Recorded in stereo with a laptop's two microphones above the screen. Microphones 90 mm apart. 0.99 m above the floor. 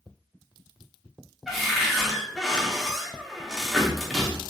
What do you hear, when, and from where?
1.5 s a cupboard door: centre (ahead or behind), 1.1 m